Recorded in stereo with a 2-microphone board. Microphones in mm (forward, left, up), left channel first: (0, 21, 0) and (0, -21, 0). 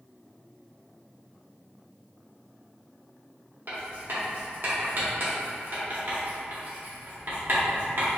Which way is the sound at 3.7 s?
55° right (ahead or behind).